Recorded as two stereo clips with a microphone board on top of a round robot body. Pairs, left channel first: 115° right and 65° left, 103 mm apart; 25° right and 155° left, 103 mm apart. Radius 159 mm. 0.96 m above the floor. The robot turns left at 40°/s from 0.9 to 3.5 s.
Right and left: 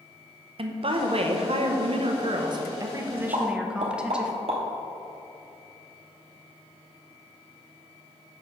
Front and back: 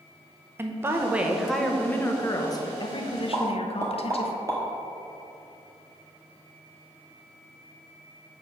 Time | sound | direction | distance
0.6 | a woman speaking | 90° left | 1.0 m
3.3 | a pop | 105° left | 0.9 m